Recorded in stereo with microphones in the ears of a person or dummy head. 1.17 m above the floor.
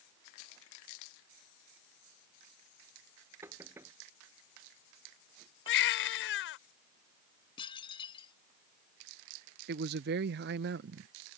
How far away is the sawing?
No sawing in this recording.